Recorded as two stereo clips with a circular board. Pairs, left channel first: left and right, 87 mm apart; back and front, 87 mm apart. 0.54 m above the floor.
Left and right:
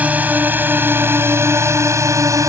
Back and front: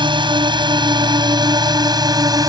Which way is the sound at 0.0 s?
20° right.